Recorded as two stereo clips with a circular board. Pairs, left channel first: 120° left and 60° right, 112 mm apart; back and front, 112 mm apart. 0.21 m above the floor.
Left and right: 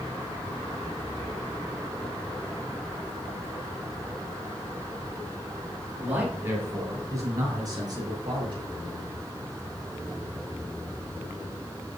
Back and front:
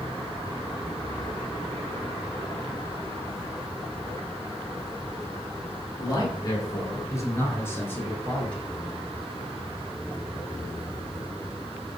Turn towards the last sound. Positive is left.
turn(degrees=-100)